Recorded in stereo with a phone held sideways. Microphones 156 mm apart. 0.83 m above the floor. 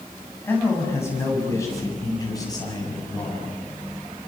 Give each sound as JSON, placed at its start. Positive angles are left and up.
{"t": 0.4, "sound": "a man speaking", "side_deg": 15, "distance_m": 7.0}